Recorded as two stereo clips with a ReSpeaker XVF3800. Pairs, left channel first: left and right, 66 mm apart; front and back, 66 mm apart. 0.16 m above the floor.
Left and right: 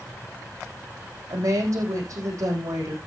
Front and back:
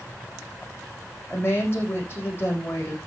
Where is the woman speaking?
55° right, 7 m.